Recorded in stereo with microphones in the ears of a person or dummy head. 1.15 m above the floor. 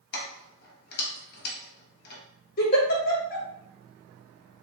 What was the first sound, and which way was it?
Keys jangling, 50° left (ahead or behind).